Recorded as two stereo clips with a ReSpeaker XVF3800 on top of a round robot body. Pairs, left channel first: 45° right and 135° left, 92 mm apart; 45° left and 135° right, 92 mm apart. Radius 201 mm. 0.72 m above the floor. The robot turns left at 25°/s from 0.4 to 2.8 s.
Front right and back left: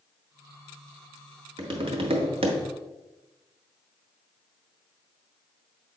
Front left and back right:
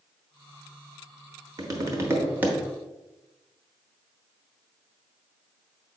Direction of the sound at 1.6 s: 175° left.